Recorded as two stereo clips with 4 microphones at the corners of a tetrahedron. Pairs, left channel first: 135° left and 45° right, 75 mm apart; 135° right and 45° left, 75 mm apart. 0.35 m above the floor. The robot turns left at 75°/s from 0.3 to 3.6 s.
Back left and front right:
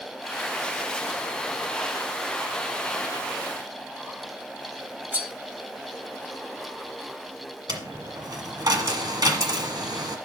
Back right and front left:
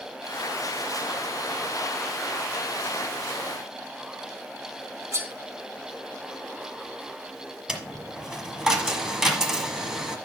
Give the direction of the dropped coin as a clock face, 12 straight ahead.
1 o'clock.